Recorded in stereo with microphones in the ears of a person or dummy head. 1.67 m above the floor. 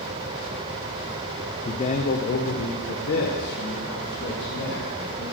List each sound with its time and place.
1.6 s a man speaking: 25° left (ahead or behind), 0.5 m; by 5.2 s 70° left (ahead or behind), 3.5 m